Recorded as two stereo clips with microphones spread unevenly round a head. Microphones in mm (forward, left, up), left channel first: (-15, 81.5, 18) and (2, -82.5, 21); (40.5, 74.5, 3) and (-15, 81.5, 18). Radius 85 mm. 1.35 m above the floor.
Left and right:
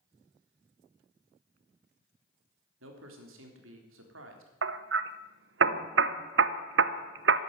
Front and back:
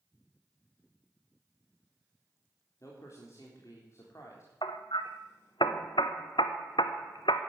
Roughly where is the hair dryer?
I don't hear a hair dryer.